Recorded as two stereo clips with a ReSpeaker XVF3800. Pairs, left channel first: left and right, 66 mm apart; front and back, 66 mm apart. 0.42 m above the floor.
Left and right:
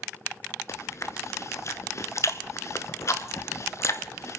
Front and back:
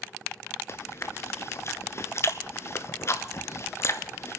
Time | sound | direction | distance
0.7 | chewing | 45° left | 0.8 m